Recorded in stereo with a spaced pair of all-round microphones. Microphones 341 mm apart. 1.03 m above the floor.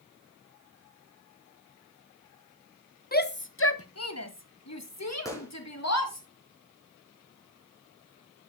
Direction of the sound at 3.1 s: 25° left (ahead or behind).